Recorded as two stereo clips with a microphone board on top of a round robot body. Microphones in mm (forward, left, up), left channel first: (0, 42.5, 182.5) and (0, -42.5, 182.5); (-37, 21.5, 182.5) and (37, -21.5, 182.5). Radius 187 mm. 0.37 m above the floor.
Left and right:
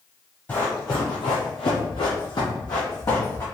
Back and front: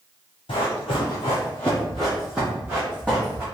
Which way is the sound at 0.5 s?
160° left.